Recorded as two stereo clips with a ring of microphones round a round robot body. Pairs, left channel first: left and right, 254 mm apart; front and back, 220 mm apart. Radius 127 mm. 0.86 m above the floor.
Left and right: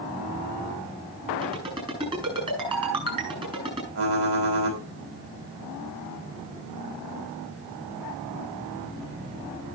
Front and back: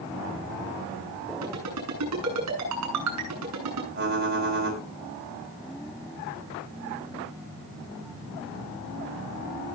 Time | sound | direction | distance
1.4 | a ringtone | 160° right | 8.5 m
4.0 | typing on a keyboard | 130° right | 4 m